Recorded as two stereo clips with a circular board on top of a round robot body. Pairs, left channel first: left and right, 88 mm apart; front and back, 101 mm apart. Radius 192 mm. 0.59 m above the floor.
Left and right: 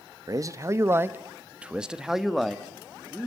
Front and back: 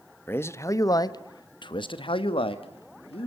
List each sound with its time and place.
0.3 s a man speaking: 60° right, 1.4 m; by 3.3 s 10° left, 2 m